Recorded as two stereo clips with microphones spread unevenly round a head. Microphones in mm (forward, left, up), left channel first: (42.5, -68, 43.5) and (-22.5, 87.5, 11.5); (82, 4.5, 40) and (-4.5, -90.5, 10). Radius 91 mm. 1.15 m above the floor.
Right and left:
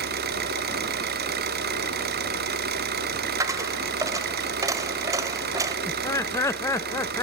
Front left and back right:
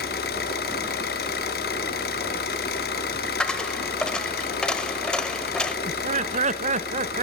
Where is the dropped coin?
40° left, 0.9 m.